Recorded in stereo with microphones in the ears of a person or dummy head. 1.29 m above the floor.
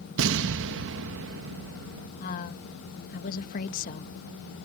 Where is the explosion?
70° right (ahead or behind).